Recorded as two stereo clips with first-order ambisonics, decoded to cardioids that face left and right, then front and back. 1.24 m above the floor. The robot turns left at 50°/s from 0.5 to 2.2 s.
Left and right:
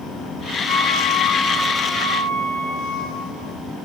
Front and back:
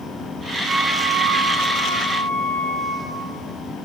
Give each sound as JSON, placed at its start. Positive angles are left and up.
{"t": 0.7, "sound": "a flute", "azimuth_deg": 120, "distance_m": 0.9}